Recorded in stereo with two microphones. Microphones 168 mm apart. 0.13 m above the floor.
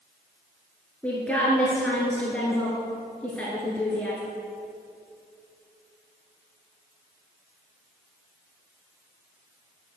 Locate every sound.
1.0 s a woman speaking: 5° left (ahead or behind), 1.8 m